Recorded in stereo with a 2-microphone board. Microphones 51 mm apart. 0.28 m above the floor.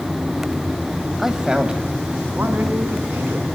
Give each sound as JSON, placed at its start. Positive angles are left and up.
{"t": 1.2, "sound": "a man speaking", "side_deg": -5, "distance_m": 1.5}